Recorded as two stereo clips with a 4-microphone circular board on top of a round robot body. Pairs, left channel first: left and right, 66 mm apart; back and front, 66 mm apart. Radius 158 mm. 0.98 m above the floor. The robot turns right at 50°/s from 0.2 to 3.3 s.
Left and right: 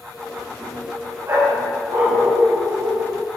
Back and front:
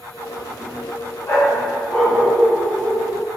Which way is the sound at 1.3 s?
140° right.